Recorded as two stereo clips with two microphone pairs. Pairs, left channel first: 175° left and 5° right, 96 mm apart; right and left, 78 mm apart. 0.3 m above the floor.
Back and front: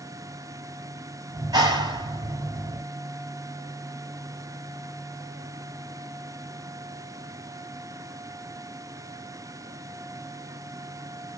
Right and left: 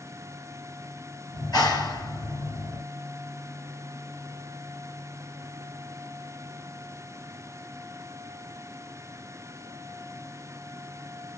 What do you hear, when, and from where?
1.3 s a clap: 55° right, 4.5 m